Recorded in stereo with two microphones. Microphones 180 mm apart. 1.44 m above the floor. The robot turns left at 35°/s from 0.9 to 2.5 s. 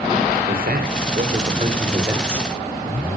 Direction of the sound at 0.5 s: 115° right.